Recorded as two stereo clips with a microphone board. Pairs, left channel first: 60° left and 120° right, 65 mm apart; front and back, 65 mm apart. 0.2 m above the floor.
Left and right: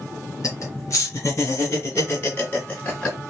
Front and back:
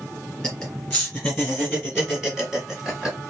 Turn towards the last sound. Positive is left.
turn(degrees=115)